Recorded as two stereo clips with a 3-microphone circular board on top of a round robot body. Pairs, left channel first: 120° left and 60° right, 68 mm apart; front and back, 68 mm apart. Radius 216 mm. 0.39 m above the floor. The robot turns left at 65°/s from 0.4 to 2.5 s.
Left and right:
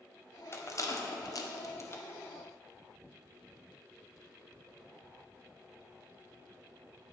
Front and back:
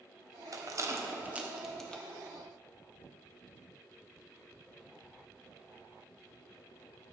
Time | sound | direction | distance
0.5 | a rattle | 165° left | 2 m